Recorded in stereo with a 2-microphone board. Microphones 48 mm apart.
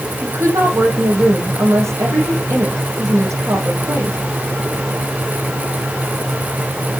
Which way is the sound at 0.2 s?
70° right (ahead or behind).